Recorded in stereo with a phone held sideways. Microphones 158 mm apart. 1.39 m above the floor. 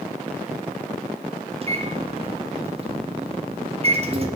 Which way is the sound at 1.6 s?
40° right (ahead or behind).